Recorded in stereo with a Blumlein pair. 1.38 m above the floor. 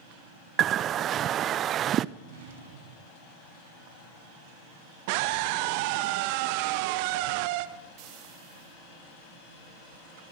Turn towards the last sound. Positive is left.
turn(degrees=-40)